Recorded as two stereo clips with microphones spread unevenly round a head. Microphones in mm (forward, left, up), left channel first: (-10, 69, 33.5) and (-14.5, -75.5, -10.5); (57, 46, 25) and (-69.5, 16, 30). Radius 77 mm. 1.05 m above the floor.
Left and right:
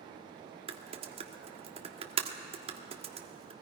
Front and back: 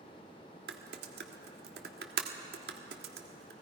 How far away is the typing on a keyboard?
About 1.4 m.